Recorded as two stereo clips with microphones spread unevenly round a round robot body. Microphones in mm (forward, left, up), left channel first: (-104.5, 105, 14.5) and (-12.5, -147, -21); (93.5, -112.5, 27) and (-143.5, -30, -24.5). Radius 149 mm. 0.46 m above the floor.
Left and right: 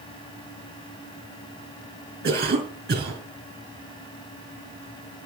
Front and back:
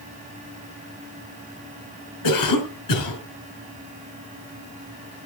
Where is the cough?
10° right, 5.5 m.